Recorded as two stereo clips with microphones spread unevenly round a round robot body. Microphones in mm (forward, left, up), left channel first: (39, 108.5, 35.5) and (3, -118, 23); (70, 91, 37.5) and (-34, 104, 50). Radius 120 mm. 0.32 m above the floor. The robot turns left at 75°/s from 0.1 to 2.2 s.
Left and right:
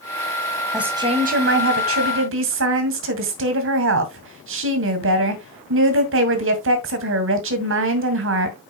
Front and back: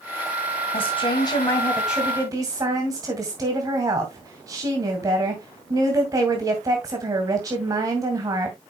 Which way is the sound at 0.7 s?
10° right.